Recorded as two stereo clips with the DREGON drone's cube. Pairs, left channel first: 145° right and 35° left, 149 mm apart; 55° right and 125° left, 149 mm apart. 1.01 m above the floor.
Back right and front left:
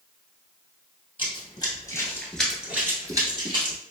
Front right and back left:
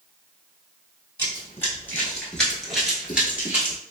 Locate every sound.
1.2 s running footsteps: 120° right, 1.3 m; by 3.8 s 55° left, 1.3 m